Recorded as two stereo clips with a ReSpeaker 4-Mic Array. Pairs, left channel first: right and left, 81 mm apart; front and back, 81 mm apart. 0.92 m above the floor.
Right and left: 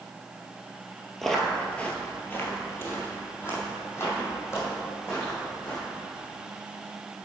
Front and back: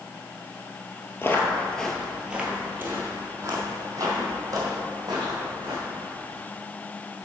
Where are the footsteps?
5° right, 1.0 m; by 5.8 s 145° right, 3 m.